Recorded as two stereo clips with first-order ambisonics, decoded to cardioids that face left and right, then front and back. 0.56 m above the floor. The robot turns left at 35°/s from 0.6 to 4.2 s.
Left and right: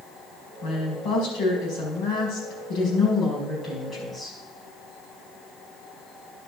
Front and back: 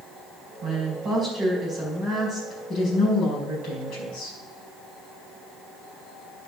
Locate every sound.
0.6 s a woman speaking: 135° left, 5 m; by 4.4 s 10° left, 5 m